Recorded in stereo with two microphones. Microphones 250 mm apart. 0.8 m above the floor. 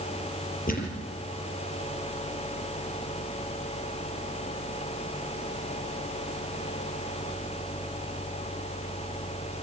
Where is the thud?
35° left (ahead or behind), 4 m.